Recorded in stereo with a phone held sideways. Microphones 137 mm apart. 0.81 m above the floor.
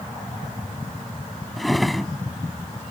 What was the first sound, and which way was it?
A drawer, centre (ahead or behind).